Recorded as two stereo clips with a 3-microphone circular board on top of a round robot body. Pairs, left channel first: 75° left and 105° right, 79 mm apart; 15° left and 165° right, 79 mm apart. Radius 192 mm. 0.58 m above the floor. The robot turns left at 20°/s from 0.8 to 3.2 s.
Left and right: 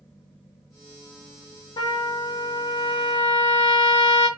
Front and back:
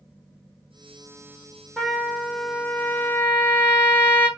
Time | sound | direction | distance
1.8 | a trumpet | 105° left | 0.5 m